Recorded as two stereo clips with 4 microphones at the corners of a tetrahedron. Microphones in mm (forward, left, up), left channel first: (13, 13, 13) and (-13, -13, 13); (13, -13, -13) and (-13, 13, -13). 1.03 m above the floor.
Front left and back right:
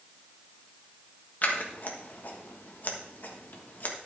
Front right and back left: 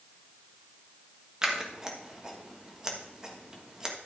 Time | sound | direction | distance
1.4 | scissors | 70° left | 1.4 m